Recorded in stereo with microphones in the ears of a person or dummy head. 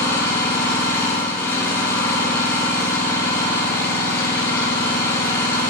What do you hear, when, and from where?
0.0 s an engine running: 20° left (ahead or behind), 4 m